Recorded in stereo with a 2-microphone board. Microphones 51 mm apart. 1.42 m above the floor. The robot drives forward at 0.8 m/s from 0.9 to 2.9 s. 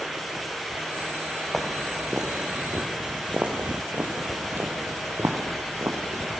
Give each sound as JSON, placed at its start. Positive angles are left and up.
{"t": 1.5, "sound": "footsteps", "side_deg": 0, "distance_m": 2.0}